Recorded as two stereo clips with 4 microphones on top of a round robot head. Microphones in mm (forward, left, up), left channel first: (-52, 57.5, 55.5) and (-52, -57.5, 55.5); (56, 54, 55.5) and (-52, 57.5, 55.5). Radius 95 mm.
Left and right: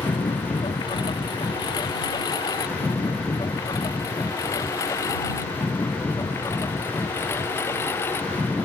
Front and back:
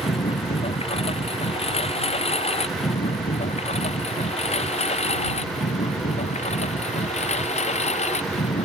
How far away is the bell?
No bell in this recording.